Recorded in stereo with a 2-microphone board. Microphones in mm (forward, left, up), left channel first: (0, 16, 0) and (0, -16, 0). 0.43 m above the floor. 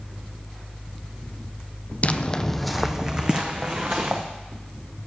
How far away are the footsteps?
About 0.7 m.